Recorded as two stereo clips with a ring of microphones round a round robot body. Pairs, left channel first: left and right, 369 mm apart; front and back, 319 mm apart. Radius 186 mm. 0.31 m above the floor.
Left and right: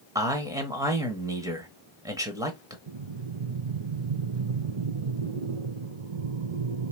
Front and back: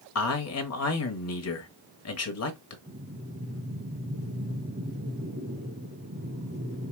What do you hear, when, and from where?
0.1 s a man speaking: 10° right, 1.2 m
2.9 s breathing: 110° right, 0.6 m